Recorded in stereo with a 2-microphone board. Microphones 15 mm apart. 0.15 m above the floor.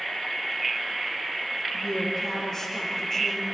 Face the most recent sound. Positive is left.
turn(degrees=30)  # may be behind; listen again after turning